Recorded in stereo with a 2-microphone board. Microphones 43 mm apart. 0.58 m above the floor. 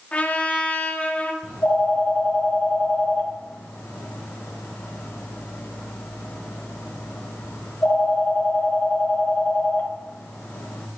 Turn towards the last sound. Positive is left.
turn(degrees=65)  # may be behind; listen again after turning